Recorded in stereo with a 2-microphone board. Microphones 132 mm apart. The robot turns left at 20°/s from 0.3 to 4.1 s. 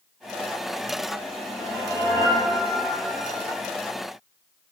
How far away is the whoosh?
About 1.7 m.